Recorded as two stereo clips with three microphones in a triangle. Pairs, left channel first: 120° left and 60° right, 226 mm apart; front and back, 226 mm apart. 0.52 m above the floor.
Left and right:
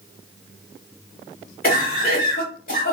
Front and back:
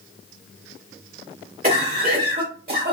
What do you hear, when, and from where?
1.6 s a cough: 150° left, 1.0 m